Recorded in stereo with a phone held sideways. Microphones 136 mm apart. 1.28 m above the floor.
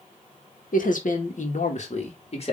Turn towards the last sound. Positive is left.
turn(degrees=45)  # may be behind; listen again after turning